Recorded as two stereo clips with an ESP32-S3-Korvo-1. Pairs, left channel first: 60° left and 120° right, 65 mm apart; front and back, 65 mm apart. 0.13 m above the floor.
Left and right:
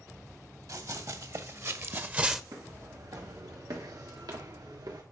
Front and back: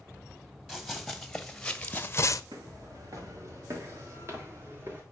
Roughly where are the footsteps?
Behind right.